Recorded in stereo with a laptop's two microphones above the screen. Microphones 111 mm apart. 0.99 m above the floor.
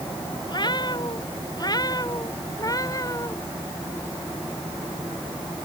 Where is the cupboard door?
I don't hear a cupboard door.